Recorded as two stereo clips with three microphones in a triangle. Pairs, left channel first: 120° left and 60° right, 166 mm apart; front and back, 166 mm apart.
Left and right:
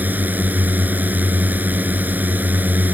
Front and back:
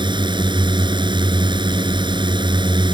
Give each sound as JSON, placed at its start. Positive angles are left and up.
{"t": 0.0, "sound": "a drone", "azimuth_deg": -135}